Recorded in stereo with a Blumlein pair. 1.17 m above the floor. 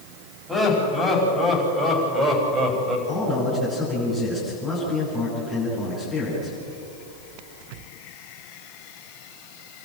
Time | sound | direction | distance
0.5 | laughter | 5° right | 7.5 m
3.1 | a man speaking | 20° left | 9.5 m